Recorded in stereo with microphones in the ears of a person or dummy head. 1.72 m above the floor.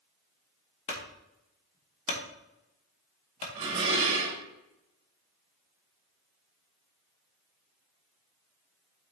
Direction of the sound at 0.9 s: 35° left (ahead or behind).